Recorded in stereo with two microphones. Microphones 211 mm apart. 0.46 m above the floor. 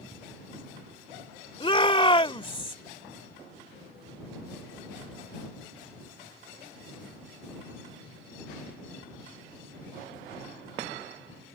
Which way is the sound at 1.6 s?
25° left (ahead or behind).